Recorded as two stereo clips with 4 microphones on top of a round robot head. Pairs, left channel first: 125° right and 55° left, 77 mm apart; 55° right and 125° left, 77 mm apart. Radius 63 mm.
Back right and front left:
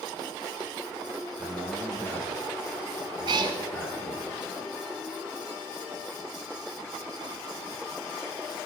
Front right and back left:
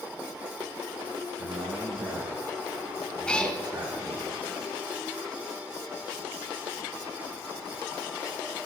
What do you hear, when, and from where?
1.4 s a man speaking: 165° left, 5 m
3.3 s a cat meowing: 20° left, 0.9 m